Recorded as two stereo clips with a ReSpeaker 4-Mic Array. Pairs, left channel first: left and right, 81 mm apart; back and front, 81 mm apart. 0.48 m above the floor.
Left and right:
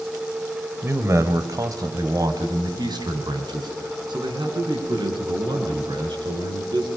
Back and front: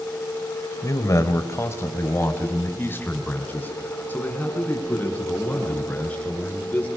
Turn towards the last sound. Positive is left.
turn(degrees=-105)